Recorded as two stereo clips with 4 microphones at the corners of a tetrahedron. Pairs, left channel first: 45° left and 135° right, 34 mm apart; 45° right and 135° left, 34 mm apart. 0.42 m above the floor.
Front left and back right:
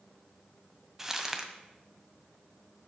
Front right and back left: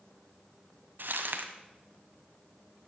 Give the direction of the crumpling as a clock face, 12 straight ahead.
7 o'clock.